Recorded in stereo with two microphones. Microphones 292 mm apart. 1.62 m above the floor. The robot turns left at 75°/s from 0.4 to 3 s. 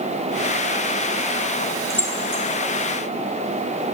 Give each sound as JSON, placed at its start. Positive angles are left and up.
{"t": 1.9, "sound": "keys jangling", "side_deg": 0, "distance_m": 4.0}